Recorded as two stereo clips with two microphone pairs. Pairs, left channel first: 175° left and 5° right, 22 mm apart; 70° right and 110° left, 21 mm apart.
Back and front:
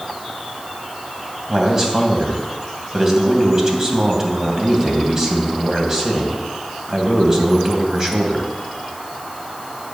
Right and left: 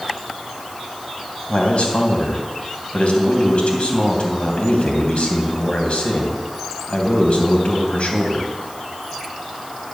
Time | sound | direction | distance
1.5 | a man speaking | 75° right | 3 m